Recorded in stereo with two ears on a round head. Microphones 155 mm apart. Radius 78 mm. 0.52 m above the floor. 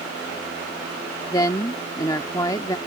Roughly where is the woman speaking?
Left.